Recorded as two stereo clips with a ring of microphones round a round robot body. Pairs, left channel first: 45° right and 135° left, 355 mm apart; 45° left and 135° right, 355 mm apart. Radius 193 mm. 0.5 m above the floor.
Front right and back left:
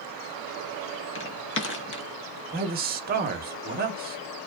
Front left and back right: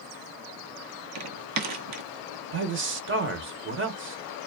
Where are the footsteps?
95° right, 0.7 m.